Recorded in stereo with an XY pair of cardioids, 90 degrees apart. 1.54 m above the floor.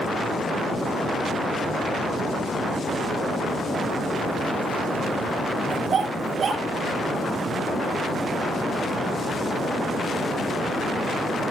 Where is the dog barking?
60° right, 8 m.